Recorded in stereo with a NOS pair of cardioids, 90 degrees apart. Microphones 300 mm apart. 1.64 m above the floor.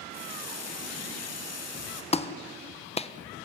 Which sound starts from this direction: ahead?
A clap, at 2.1 s.